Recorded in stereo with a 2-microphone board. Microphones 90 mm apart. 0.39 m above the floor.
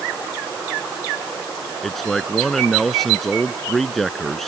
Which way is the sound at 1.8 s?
Centre (ahead or behind).